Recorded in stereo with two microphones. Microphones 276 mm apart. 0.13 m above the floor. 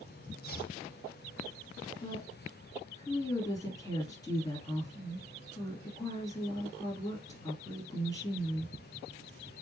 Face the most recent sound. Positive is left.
turn(degrees=15)  # may be behind; listen again after turning